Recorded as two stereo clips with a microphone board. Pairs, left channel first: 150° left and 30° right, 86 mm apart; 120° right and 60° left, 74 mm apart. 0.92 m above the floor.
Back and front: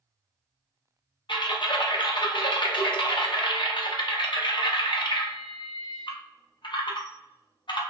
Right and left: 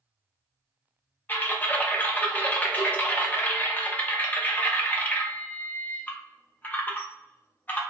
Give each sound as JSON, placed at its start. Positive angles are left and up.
{"t": 1.3, "sound": "typing on a keyboard", "azimuth_deg": 175, "distance_m": 0.6}